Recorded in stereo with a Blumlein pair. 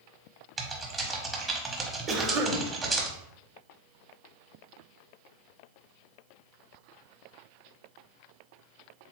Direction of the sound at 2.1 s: 30° right.